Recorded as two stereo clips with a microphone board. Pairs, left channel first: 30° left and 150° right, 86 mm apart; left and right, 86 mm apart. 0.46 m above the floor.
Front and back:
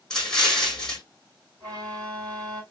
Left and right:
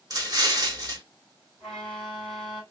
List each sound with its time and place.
0.1 s an explosion: 55° right, 1.3 m
1.6 s a violin: 170° left, 2.5 m